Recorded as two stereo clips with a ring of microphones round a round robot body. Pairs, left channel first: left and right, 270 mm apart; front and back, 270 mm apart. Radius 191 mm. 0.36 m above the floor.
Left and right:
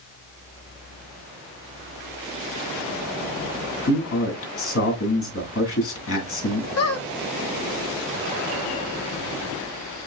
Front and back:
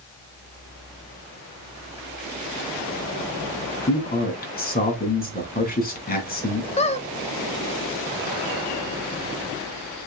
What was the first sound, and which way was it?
A man speaking, 55° left.